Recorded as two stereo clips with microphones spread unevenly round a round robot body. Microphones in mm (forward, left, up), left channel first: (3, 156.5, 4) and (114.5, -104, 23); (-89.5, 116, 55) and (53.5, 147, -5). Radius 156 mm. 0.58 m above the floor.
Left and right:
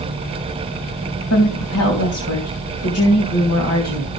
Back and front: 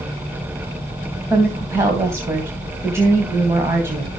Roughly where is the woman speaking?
Left.